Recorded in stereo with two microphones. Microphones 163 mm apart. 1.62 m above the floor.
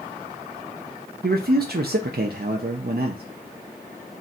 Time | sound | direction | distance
1.2 | a man speaking | 80° right | 0.5 m